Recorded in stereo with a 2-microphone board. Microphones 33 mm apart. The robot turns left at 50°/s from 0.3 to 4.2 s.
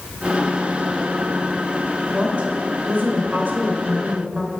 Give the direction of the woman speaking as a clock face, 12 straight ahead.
1 o'clock.